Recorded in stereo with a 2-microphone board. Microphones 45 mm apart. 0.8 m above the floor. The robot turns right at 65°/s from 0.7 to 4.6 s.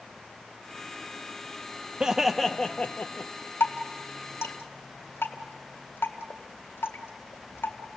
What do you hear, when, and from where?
2.0 s laughter: 25° right, 0.5 m; by 3.3 s 60° left, 0.5 m
3.6 s dripping: 55° left (ahead or behind), 1.9 m; by 8.0 s 60° left (ahead or behind), 1.9 m